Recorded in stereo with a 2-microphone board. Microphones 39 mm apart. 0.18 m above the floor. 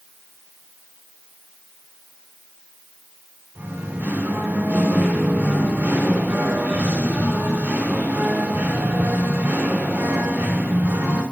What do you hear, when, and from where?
3.5 s singing: 60° right (ahead or behind), 4 m